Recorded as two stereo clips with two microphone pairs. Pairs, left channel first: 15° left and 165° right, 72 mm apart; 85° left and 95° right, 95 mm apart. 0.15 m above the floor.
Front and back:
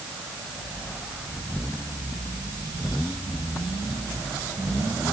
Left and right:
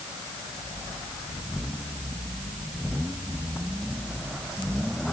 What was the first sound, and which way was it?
Only background noise.